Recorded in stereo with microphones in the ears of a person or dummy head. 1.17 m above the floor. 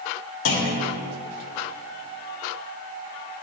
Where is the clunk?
80° left, 1.5 m.